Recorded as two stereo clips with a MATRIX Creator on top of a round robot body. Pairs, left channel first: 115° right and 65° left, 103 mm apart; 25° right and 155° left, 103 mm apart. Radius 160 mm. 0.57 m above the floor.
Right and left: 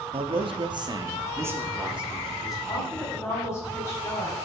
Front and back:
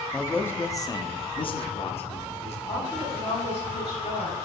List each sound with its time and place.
0.1 s a man speaking: 60° left, 1.5 m; by 2.6 s 20° right, 2 m
2.7 s a woman speaking: 50° right, 4.5 m